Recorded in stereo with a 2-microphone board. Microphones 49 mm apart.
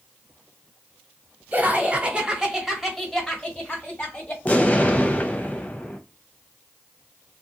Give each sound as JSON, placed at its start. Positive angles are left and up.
{"t": 1.5, "sound": "laughter", "side_deg": -35, "distance_m": 1.2}
{"t": 4.5, "sound": "an explosion", "side_deg": 30, "distance_m": 0.6}